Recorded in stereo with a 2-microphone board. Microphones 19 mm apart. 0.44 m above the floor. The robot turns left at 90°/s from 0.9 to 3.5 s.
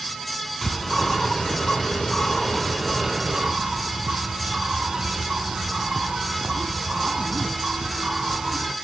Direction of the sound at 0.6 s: 170° left.